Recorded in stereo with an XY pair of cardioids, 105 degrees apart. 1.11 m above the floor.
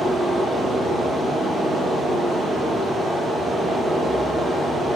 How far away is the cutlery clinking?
I don't hear cutlery clinking.